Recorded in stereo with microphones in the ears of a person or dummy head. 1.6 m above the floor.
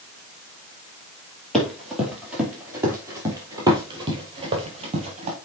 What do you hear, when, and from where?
1.5 s running footsteps: 5° left (ahead or behind), 3 m; by 5.4 s 30° right (ahead or behind), 3 m